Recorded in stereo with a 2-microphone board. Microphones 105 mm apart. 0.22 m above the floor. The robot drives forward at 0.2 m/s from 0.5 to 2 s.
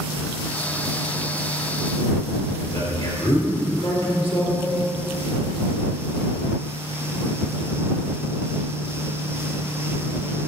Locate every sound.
2.6 s a man speaking: 50° left (ahead or behind), 3 m